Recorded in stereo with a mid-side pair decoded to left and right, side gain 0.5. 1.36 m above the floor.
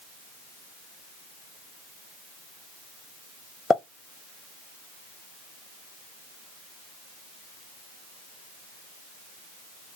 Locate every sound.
3.7 s a pop: 35° left, 0.7 m